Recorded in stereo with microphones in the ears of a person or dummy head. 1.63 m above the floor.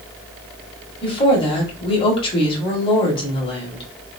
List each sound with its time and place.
1.0 s a woman speaking: 35° left (ahead or behind), 1.4 m